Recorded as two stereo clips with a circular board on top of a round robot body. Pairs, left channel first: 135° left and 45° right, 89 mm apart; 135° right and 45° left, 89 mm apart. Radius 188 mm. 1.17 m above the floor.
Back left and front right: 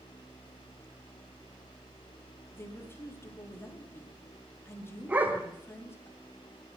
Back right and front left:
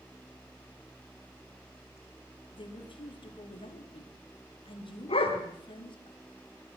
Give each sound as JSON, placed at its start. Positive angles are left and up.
{"t": 2.5, "sound": "a woman speaking", "azimuth_deg": -160, "distance_m": 3.0}
{"t": 5.1, "sound": "a dog barking", "azimuth_deg": -120, "distance_m": 1.7}